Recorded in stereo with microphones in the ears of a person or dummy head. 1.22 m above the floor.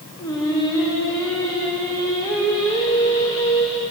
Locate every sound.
0.2 s singing: 10° left (ahead or behind), 0.7 m